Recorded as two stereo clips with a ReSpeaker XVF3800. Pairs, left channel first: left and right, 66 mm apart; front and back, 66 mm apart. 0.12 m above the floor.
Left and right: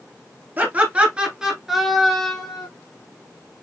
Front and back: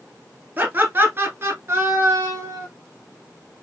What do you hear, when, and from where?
0.6 s laughter: 135° right, 1.4 m; by 2.7 s 160° left, 1.5 m